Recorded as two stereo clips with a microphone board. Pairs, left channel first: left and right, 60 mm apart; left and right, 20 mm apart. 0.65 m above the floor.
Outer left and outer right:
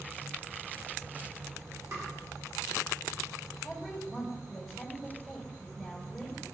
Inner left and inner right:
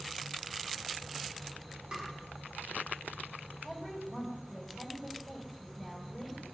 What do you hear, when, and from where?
1.9 s tapping: 55° right (ahead or behind), 2.5 m
3.6 s a woman speaking: 5° right (ahead or behind), 3.5 m